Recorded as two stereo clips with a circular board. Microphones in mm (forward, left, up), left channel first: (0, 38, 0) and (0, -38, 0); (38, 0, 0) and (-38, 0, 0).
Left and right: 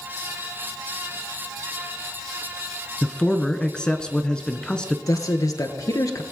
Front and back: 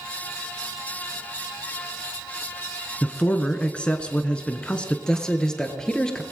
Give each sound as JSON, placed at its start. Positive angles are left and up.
{"t": 3.0, "sound": "a man speaking", "azimuth_deg": 35, "distance_m": 1.1}
{"t": 5.1, "sound": "a man speaking", "azimuth_deg": 75, "distance_m": 1.6}